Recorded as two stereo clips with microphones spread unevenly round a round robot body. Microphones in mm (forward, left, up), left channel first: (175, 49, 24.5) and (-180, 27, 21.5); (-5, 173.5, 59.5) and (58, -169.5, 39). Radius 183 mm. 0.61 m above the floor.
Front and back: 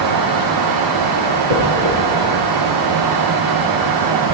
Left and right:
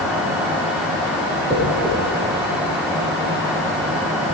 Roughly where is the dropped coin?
Behind.